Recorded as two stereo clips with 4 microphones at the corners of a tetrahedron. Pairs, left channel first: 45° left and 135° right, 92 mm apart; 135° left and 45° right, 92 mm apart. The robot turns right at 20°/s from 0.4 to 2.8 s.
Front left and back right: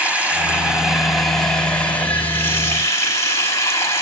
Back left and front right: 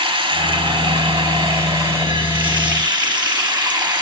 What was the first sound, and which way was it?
Running water, 60° right.